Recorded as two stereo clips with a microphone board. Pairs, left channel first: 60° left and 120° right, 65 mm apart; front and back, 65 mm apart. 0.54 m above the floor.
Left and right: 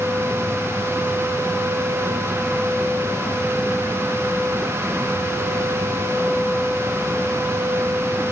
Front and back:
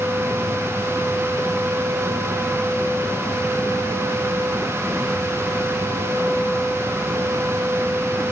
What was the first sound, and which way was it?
Only background noise.